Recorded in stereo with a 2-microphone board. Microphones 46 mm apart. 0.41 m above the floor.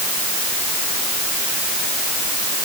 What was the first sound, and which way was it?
Only background noise.